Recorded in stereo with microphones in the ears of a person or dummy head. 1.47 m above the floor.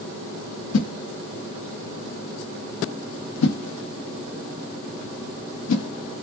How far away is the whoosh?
About 0.6 m.